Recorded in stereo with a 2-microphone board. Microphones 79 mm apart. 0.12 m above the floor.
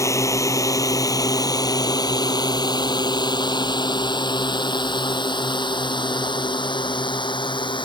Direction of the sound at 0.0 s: 40° left (ahead or behind).